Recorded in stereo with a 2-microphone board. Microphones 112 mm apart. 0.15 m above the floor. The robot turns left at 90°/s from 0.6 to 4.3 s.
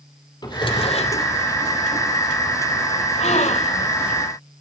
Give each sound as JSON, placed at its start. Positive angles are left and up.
{"t": 0.4, "sound": "a drawer", "azimuth_deg": 140, "distance_m": 3.0}
{"t": 3.2, "sound": "a gasp", "azimuth_deg": 110, "distance_m": 2.5}